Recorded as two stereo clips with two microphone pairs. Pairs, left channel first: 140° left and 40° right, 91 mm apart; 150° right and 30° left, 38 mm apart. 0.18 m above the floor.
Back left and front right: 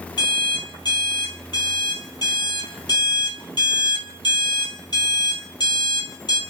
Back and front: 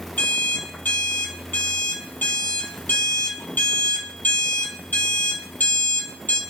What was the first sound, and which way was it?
An alarm clock, 175° left.